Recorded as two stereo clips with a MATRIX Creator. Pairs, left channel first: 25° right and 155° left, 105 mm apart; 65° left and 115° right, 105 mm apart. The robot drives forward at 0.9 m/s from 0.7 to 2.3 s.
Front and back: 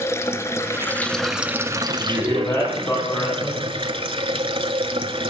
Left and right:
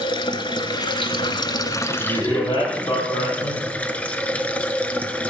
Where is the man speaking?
30° left, 5.5 m.